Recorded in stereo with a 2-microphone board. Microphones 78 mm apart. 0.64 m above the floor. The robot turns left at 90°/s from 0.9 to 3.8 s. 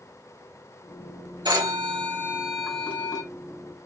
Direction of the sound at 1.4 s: 70° right.